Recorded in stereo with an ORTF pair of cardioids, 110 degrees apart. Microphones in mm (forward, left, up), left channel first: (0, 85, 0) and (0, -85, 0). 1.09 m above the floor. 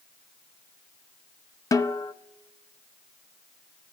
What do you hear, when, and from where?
1.7 s a snare drum: 20° left, 0.7 m